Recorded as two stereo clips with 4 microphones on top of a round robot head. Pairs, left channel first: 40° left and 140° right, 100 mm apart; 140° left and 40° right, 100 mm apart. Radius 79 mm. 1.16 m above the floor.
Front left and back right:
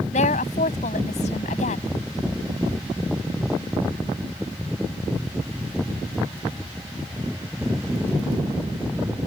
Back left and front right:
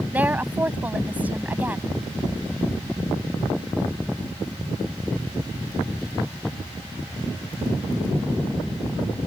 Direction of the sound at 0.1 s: 35° left.